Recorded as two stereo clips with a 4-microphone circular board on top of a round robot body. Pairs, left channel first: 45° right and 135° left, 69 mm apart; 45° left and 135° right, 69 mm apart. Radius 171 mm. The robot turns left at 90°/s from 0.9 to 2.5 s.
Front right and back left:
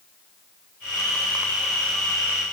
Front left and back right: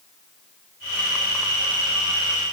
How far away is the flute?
I don't hear a flute.